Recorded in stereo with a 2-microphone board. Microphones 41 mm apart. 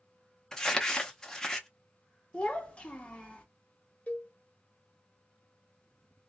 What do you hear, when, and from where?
0.5 s crumpling: 15° left (ahead or behind), 0.6 m
2.3 s a child speaking: 25° left (ahead or behind), 0.9 m
4.1 s a cowbell: 35° left (ahead or behind), 1.1 m